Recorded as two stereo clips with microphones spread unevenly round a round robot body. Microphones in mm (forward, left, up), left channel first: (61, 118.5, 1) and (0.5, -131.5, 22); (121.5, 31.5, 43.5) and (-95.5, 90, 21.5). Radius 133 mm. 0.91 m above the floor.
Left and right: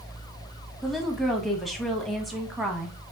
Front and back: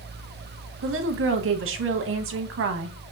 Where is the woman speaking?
165° left, 1.0 m.